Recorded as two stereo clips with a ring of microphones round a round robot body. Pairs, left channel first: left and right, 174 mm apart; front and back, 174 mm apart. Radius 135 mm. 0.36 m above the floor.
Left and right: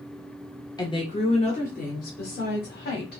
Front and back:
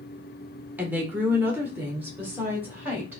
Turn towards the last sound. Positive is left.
turn(degrees=100)